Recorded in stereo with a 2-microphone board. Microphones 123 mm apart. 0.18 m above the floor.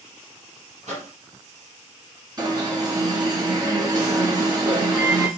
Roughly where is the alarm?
Right.